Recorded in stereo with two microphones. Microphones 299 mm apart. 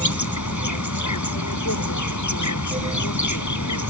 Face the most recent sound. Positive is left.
turn(degrees=75)  # may be behind; listen again after turning